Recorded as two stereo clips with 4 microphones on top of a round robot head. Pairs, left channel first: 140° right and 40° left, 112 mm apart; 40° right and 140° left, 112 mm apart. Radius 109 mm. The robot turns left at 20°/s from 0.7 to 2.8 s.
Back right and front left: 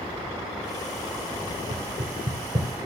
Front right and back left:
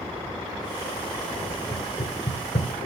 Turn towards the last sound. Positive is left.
turn(degrees=-15)